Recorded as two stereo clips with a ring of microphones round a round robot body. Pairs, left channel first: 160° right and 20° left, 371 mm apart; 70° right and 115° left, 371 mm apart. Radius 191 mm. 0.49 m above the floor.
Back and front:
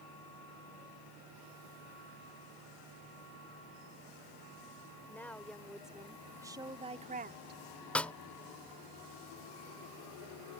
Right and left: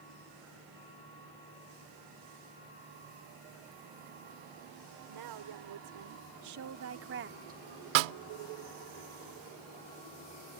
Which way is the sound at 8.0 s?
115° left.